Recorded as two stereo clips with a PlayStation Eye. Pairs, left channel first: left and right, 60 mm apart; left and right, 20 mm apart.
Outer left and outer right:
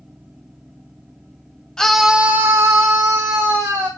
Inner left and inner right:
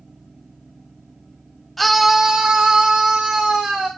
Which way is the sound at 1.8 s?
10° left (ahead or behind).